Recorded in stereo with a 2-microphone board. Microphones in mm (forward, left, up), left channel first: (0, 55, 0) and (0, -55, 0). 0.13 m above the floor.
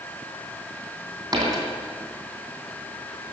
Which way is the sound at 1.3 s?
40° right (ahead or behind).